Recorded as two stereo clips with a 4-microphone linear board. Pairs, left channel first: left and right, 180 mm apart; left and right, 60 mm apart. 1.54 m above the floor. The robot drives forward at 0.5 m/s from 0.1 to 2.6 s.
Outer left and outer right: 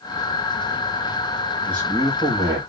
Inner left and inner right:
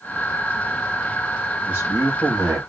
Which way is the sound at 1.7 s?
25° right (ahead or behind).